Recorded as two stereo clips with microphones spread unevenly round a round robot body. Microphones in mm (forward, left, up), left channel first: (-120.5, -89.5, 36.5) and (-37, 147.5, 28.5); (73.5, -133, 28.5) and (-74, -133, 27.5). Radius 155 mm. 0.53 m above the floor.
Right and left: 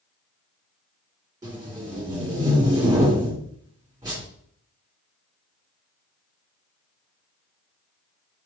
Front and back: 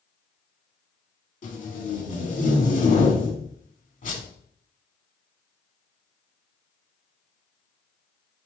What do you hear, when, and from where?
1.4 s tape being pulled: 5° right, 1.7 m